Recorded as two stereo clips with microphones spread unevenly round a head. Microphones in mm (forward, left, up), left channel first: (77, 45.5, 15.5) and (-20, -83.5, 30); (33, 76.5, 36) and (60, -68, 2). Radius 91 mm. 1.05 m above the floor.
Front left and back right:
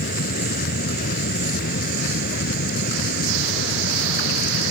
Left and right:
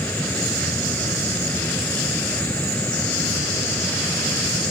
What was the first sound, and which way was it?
A fan, 25° left.